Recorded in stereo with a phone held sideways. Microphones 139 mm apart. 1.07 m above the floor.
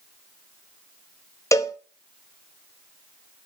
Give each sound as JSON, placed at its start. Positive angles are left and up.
{"t": 1.5, "sound": "a cowbell", "side_deg": 20, "distance_m": 0.9}